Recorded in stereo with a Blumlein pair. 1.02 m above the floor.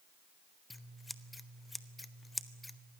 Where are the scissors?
5° left, 1.0 m.